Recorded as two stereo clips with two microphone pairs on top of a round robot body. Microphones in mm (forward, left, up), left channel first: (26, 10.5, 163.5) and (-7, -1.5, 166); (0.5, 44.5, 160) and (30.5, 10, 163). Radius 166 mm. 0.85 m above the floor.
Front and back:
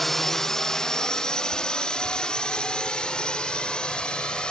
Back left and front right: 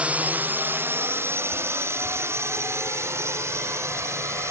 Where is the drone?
45° right; by 4.5 s 40° right.